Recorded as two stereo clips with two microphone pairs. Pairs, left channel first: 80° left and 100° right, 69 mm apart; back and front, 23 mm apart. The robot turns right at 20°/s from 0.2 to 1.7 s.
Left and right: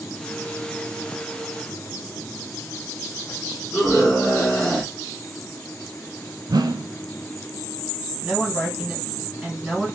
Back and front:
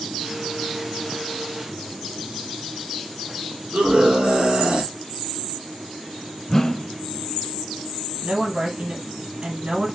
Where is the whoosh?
115° right, 0.5 m.